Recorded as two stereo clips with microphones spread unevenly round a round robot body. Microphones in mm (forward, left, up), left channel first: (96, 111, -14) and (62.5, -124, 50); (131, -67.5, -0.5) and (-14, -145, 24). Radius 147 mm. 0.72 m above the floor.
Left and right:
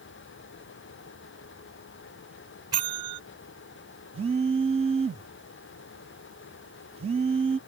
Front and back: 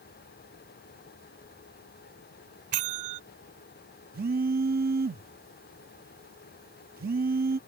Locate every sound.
2.7 s a bell: straight behind
4.1 s a phone buzzing: 170° right